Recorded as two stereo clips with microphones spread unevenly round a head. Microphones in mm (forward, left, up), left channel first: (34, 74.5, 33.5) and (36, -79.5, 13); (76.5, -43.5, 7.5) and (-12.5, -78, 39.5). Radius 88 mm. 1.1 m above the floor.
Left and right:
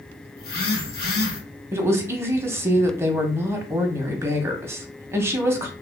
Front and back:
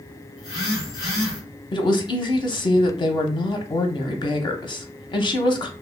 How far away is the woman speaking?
About 0.6 m.